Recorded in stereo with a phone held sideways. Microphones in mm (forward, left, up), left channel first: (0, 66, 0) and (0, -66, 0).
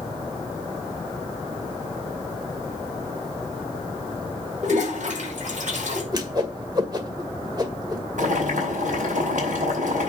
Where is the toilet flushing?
65° right (ahead or behind), 6 m.